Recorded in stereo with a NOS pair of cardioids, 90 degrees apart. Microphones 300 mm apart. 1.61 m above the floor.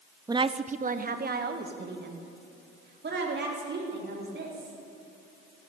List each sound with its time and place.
0.3 s a woman speaking: 15° right, 0.6 m; by 4.8 s 40° right, 5.5 m